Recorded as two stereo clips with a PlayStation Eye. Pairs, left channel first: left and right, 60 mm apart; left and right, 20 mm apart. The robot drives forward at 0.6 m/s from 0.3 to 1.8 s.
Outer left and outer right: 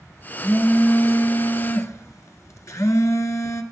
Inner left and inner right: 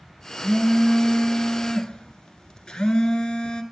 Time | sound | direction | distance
0.4 | a phone buzzing | 40° left (ahead or behind) | 1.8 m